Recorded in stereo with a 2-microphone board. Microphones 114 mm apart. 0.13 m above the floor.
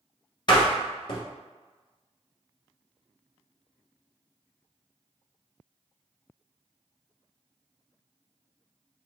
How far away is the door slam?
About 1.4 m.